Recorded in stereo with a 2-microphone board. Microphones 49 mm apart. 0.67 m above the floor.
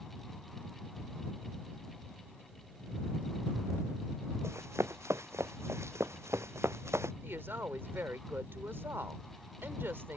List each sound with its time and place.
4.4 s running footsteps: 70° right (ahead or behind)
7.2 s a woman speaking: 55° right (ahead or behind)